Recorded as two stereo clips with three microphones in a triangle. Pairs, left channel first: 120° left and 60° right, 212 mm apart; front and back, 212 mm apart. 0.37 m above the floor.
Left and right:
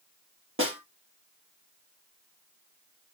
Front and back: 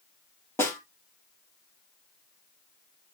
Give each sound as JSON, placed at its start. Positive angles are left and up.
{"t": 0.6, "sound": "a snare drum", "azimuth_deg": -80, "distance_m": 2.5}